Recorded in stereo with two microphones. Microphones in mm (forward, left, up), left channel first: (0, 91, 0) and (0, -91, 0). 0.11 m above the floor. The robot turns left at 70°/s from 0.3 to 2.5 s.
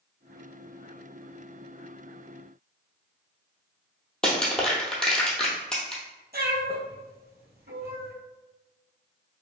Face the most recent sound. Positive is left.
turn(degrees=-65)  # may be behind; listen again after turning